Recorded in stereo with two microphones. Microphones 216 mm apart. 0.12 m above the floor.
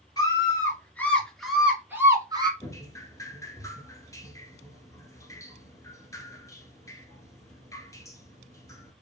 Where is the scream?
15° left (ahead or behind), 2.5 m; by 2.5 s 20° right (ahead or behind), 1.7 m.